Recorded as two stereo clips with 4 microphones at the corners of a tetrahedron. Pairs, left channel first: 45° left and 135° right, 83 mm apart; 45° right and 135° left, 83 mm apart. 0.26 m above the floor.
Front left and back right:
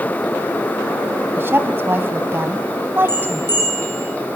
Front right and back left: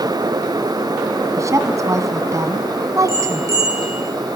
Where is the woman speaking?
170° left, 2.5 m.